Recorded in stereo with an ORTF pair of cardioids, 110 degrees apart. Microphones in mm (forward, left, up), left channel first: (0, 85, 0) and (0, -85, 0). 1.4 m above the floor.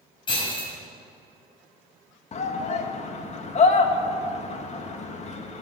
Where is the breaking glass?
30° left, 6 m.